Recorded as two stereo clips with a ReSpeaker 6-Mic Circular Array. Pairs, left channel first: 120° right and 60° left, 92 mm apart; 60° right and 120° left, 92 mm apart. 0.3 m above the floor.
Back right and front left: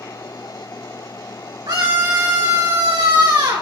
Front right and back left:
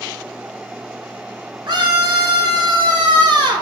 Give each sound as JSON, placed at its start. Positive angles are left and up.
{"t": 1.7, "sound": "a scream", "azimuth_deg": 85, "distance_m": 3.0}